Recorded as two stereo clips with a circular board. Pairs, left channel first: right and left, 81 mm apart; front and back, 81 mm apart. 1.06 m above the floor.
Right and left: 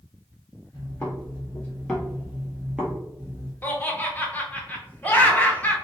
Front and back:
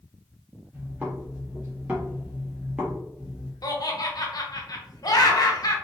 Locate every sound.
0.7 s footsteps: 120° right, 1.4 m; by 3.5 s 100° left, 1.2 m
3.6 s laughter: 25° right, 0.6 m